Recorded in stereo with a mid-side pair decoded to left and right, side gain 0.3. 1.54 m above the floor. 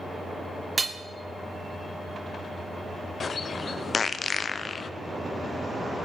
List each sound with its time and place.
0.8 s hammering: 45° right, 0.9 m
3.2 s a bird: 55° left, 0.5 m